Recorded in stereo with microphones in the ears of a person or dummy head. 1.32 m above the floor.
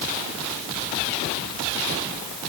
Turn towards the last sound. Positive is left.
No sound to turn to.